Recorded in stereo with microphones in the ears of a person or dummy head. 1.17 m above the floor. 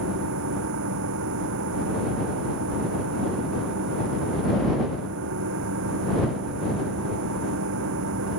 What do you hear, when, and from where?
0.0 s a machine running: 70° right (ahead or behind)